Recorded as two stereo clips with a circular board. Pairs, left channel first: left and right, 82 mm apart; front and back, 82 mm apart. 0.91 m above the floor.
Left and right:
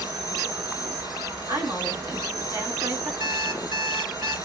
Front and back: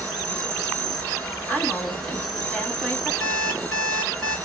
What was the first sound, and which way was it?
An insect, 85° right.